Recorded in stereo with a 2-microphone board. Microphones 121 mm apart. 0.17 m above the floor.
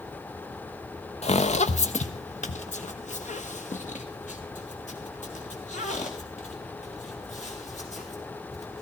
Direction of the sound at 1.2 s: 60° left (ahead or behind).